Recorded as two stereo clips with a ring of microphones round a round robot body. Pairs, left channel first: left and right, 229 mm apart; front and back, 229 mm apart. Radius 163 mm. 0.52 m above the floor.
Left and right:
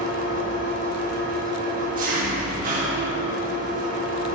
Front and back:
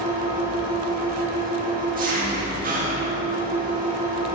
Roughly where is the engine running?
Behind right.